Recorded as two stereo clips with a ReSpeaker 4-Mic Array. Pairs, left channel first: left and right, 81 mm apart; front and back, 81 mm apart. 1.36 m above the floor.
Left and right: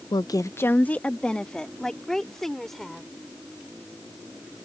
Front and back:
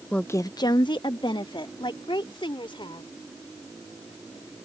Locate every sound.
0.1 s a woman speaking: 80° left; by 3.1 s 5° left